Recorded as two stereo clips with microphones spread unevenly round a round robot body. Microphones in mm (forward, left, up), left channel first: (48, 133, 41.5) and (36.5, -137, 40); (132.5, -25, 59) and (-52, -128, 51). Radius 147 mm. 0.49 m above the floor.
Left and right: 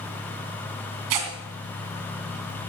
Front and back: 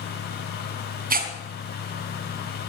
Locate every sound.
1.1 s tearing paper: 100° right, 3 m